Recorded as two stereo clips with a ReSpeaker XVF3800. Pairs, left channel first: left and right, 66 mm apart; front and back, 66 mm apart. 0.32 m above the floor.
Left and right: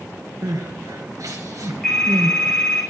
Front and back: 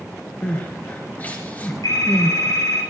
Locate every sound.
0.4 s crying: 60° right, 3.5 m
1.8 s a phone ringing: 10° left, 10 m